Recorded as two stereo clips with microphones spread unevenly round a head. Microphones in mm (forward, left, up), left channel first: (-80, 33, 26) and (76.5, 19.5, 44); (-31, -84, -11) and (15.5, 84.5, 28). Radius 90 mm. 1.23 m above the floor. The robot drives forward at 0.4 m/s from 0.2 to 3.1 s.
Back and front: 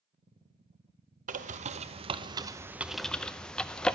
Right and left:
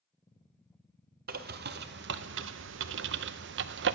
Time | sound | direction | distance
1.3 | a bird | 35° left | 0.9 m